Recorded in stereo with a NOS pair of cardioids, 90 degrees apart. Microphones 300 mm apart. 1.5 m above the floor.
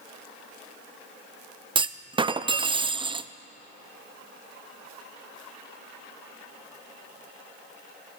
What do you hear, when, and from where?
1.8 s a clunk: 15° right, 0.5 m